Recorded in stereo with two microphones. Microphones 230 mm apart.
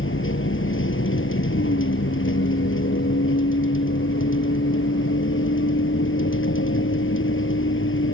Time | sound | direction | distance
0.0 | a vehicle | 60° left (ahead or behind) | ?